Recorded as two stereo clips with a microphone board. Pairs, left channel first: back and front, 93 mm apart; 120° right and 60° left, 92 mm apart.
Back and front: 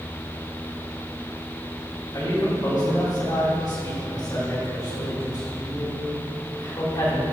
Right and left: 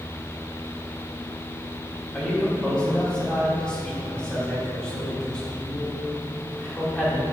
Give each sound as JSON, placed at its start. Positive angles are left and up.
{"t": 2.1, "sound": "a man speaking", "azimuth_deg": 160, "distance_m": 2.5}